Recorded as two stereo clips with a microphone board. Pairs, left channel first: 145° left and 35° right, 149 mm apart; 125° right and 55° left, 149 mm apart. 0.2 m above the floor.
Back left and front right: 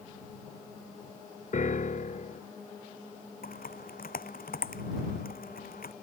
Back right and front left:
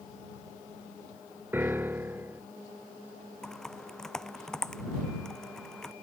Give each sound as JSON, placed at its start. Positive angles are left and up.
{"t": 1.5, "sound": "a piano", "azimuth_deg": 130}
{"t": 3.4, "sound": "typing on a keyboard", "azimuth_deg": 150}